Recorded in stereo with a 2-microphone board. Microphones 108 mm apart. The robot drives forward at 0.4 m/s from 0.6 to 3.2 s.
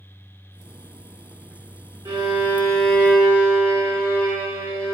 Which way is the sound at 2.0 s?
35° right (ahead or behind).